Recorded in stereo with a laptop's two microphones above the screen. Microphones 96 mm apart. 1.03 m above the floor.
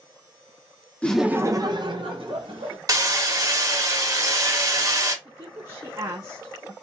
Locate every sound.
1.0 s laughter: 15° left (ahead or behind), 0.6 m; by 2.8 s 75° right (ahead or behind), 1.9 m
2.9 s hammering: 35° right (ahead or behind), 0.8 m
5.2 s a woman speaking: 40° right (ahead or behind), 0.7 m